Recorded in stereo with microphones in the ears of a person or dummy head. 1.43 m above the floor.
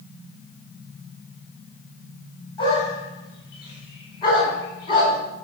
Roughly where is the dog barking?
Left.